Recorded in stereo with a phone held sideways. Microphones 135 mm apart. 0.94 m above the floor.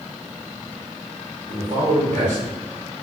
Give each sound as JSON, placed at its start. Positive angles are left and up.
{"t": 1.5, "sound": "a man speaking", "side_deg": -65, "distance_m": 1.9}